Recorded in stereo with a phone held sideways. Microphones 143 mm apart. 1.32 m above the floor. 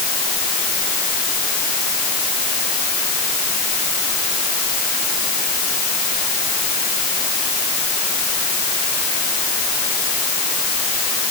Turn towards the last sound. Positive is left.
No sound to turn to.